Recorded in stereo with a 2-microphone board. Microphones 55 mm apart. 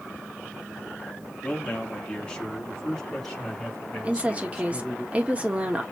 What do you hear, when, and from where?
1.4 s a man speaking: 25° left (ahead or behind), 1.4 m; by 5.0 s 5° left (ahead or behind), 3.5 m
4.0 s a woman speaking: 25° right (ahead or behind), 1.2 m